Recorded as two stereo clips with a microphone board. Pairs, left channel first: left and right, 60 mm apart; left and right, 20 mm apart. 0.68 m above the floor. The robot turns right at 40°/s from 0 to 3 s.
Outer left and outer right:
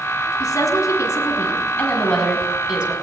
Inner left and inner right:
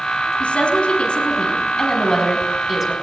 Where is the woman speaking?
95° left, 5.5 m; by 2.9 s 160° right, 5.5 m.